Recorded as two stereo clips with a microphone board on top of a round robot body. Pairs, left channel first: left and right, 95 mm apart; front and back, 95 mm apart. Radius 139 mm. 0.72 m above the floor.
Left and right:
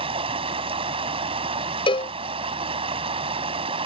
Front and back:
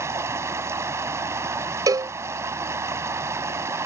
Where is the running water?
115° right.